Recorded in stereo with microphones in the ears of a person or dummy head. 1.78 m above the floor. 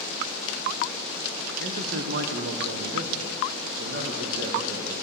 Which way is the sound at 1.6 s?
50° right (ahead or behind).